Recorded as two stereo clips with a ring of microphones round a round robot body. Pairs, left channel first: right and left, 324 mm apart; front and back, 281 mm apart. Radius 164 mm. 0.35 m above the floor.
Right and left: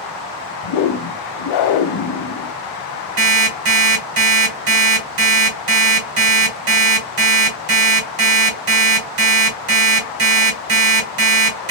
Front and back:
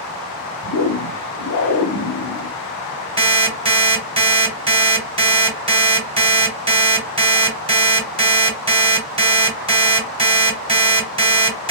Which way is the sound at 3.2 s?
110° left.